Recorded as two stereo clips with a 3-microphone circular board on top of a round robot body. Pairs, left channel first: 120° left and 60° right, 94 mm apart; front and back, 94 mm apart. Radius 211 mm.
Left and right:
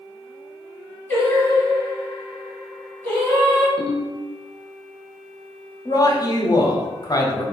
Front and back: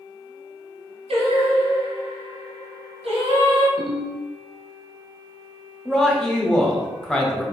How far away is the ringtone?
About 1.6 m.